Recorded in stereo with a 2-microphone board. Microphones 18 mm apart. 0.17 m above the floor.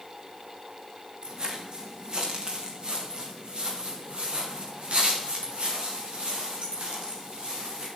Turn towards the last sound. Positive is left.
turn(degrees=-80)